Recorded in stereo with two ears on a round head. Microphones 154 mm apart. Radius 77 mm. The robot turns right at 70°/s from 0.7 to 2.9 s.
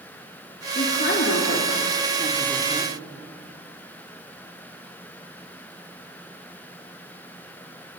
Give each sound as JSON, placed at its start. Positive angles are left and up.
{"t": 0.8, "sound": "a woman speaking", "side_deg": 40, "distance_m": 4.0}